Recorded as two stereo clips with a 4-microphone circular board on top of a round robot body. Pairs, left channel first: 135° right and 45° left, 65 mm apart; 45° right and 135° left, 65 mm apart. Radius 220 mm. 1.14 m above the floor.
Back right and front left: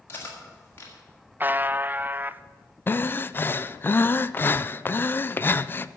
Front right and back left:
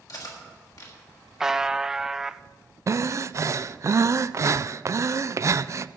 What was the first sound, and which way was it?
Cutlery clinking, 75° right.